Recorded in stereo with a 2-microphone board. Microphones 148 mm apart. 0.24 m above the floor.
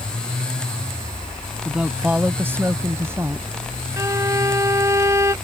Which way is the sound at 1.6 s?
5° right (ahead or behind).